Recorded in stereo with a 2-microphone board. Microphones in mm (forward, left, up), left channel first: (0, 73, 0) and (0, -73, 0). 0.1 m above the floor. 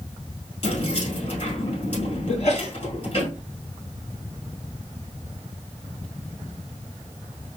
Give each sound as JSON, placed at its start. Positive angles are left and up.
{"t": 0.6, "sound": "keys jangling", "side_deg": 45, "distance_m": 1.7}
{"t": 2.3, "sound": "a sneeze", "side_deg": 50, "distance_m": 1.9}